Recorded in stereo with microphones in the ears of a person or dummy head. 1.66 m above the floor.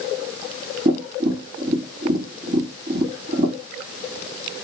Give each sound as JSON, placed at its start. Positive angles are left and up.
{"t": 0.8, "sound": "tapping", "side_deg": -40, "distance_m": 1.7}